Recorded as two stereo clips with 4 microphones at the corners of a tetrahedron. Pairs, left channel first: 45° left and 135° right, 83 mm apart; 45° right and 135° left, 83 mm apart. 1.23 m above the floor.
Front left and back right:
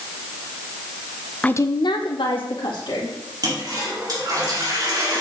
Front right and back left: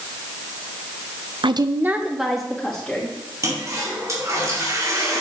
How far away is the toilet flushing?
About 2.5 m.